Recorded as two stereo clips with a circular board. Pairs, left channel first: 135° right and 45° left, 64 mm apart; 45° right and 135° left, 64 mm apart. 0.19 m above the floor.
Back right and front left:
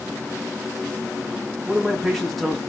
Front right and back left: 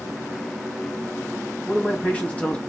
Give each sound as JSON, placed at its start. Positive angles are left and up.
{"t": 1.6, "sound": "a man speaking", "azimuth_deg": -50, "distance_m": 1.2}